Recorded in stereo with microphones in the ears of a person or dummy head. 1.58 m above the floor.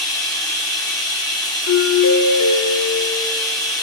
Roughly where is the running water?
Centre.